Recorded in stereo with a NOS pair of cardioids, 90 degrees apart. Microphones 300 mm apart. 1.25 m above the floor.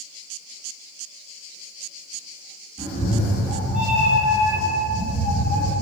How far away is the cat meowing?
About 1.7 m.